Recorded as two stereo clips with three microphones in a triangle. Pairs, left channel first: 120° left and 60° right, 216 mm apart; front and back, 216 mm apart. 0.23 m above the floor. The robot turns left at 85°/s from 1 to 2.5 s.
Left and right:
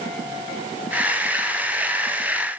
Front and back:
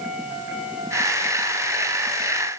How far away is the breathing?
No breathing in this recording.